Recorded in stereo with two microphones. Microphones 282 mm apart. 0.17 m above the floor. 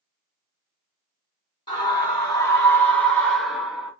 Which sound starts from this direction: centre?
A scream, at 1.7 s.